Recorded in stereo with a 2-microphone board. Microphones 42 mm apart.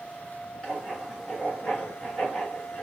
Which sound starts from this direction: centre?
Writing, at 0.6 s.